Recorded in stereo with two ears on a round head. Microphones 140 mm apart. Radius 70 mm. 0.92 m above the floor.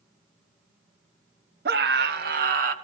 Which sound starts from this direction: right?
A scream, at 1.6 s.